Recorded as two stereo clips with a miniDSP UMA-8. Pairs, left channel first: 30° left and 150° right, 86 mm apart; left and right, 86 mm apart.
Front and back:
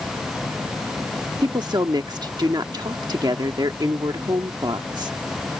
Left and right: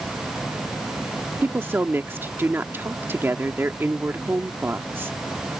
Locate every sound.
1.4 s a woman speaking: 150° right